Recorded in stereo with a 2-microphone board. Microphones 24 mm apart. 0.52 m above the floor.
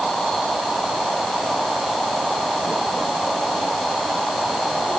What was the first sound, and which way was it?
Only background noise.